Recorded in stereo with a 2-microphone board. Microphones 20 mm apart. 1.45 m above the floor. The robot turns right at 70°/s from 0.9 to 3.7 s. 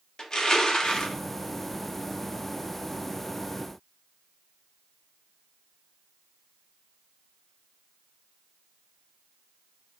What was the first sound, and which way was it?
Crushing, 50° left (ahead or behind).